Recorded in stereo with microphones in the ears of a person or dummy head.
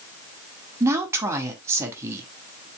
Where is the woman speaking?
20° right (ahead or behind), 2.0 m.